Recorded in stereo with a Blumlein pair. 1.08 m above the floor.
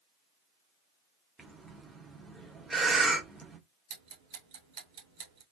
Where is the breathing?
5° right, 1.5 m.